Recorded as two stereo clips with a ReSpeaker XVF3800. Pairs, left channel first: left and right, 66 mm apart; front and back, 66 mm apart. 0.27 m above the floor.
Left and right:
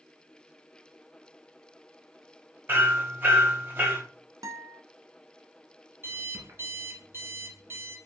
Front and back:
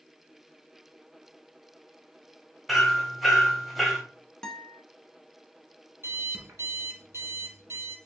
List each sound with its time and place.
2.7 s hammering: 90° right, 1.2 m
4.4 s a guitar: 80° right, 0.7 m
6.0 s an alarm clock: 135° right, 1.3 m